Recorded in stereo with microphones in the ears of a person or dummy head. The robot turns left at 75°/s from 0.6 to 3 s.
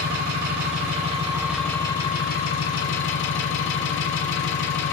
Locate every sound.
0.0 s an engine running: 105° right, 1.7 m; by 4.9 s 75° left, 1.7 m